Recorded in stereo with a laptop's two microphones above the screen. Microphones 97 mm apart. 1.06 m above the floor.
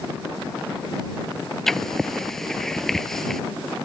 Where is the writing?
5° left (ahead or behind).